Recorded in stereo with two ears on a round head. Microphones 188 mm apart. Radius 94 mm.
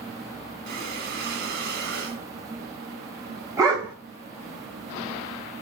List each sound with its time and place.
0.7 s breathing: 45° right (ahead or behind), 3 m
3.6 s a dog barking: 15° right (ahead or behind), 2.5 m